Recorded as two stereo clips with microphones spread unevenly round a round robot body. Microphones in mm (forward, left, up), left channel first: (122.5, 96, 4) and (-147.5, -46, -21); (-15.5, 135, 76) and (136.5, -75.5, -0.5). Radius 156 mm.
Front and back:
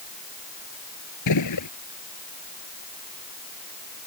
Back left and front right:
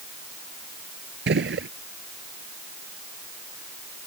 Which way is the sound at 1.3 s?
10° right.